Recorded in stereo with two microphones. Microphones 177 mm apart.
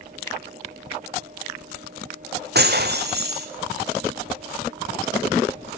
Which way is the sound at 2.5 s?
70° right (ahead or behind).